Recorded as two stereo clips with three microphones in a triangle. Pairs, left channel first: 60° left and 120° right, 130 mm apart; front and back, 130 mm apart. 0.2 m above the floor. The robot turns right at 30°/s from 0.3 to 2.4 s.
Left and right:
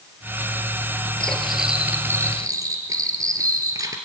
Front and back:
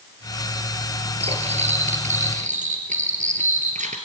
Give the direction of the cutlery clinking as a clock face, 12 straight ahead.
7 o'clock.